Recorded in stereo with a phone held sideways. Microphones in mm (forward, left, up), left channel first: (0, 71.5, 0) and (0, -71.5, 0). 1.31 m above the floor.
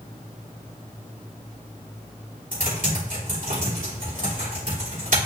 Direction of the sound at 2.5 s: 65° right (ahead or behind).